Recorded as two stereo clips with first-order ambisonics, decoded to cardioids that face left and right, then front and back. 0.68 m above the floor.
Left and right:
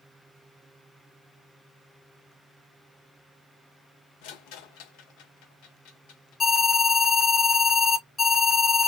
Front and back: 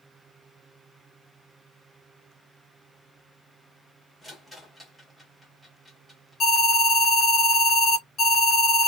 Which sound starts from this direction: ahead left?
An alarm, at 6.4 s.